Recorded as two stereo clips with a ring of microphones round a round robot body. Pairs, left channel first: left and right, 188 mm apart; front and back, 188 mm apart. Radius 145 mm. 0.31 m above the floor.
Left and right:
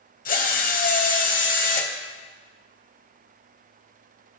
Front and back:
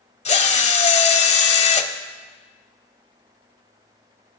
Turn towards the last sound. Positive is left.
turn(degrees=50)